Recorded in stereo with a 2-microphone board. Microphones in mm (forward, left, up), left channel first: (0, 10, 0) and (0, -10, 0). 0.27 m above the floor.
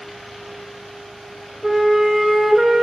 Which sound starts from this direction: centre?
A flute, at 1.6 s.